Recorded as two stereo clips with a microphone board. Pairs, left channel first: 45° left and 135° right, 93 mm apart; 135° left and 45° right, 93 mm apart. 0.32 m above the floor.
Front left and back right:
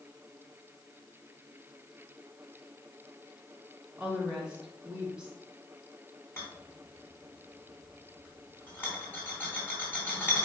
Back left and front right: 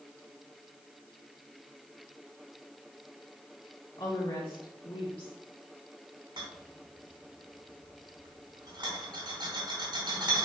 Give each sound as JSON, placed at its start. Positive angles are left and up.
{"t": 4.0, "sound": "a woman speaking", "azimuth_deg": 140, "distance_m": 3.0}
{"t": 6.4, "sound": "a rattle", "azimuth_deg": -20, "distance_m": 3.0}